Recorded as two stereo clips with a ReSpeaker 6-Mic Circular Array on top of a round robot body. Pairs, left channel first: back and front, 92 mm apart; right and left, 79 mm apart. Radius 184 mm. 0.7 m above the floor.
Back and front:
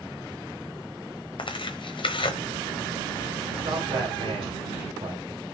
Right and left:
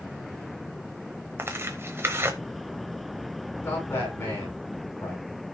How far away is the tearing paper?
About 0.9 m.